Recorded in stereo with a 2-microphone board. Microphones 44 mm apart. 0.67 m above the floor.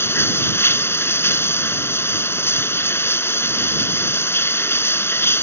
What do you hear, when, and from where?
0.0 s running water: 75° left (ahead or behind)